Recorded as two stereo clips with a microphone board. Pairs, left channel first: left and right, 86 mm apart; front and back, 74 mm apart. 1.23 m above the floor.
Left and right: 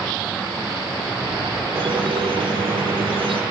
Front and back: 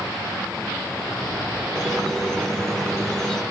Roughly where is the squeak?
Right.